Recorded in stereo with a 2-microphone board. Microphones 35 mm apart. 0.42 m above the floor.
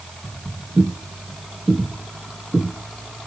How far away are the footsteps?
About 5.5 m.